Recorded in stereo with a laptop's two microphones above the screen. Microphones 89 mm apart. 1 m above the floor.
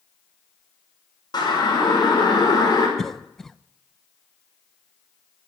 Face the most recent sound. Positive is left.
turn(degrees=5)  # may be behind; listen again after turning